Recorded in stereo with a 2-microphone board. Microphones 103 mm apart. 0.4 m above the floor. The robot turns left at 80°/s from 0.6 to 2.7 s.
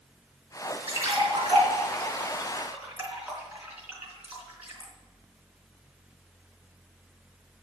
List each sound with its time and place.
0.9 s a splash: 20° right (ahead or behind), 3.5 m; by 4.9 s 15° right (ahead or behind), 3.5 m